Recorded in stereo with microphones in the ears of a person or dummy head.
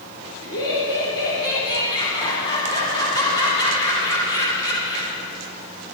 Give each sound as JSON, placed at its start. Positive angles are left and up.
{"t": 0.4, "sound": "laughter", "side_deg": 25, "distance_m": 3.5}